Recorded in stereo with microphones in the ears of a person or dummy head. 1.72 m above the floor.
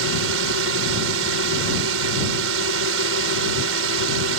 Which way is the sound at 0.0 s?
85° right.